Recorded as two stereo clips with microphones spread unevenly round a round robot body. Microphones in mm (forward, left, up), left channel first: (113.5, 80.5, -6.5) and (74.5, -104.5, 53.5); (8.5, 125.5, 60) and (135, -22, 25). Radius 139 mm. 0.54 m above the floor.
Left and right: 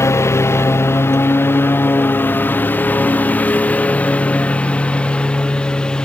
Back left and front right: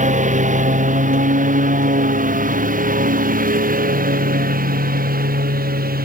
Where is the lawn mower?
Straight ahead; by 6.0 s 10° right.